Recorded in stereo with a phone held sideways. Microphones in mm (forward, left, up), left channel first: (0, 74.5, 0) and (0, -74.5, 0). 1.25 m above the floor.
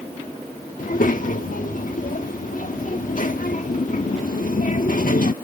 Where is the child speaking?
65° left (ahead or behind).